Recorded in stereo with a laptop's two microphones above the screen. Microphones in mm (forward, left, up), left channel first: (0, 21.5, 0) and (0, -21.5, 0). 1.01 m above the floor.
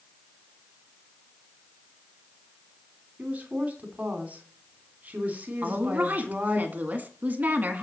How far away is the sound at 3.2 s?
About 3 m.